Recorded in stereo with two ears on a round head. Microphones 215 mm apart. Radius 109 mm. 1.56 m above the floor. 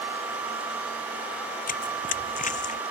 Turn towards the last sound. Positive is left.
turn(degrees=35)  # may be behind; listen again after turning